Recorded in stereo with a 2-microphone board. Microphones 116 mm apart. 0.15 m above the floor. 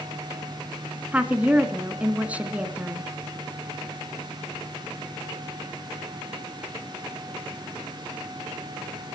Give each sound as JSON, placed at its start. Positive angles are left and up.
{"t": 1.1, "sound": "a woman speaking", "side_deg": -15, "distance_m": 1.8}